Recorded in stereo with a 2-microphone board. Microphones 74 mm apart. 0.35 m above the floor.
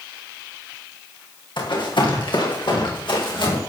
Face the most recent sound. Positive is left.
turn(degrees=85)